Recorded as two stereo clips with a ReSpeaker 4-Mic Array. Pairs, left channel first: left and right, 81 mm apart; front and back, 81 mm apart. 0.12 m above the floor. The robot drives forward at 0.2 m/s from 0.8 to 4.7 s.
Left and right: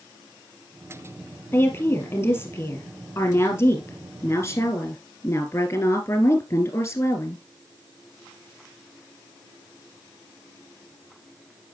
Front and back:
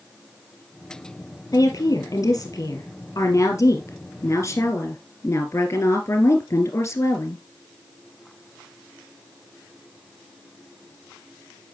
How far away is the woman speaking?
About 2 m.